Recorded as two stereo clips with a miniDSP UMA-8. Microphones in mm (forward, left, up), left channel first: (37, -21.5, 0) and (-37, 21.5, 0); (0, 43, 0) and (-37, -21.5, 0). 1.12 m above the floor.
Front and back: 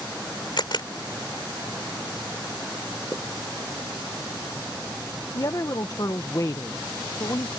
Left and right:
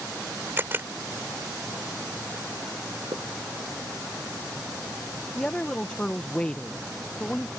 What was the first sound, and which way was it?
A camera shutter, 60° right.